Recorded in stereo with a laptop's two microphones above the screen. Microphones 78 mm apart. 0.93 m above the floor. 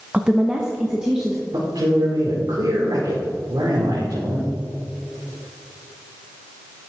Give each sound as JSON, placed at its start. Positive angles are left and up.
{"t": 0.1, "sound": "a woman speaking", "side_deg": -15, "distance_m": 0.5}
{"t": 1.5, "sound": "a man speaking", "side_deg": -80, "distance_m": 2.0}